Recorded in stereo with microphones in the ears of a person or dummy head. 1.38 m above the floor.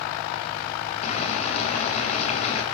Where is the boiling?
45° left (ahead or behind), 4 m.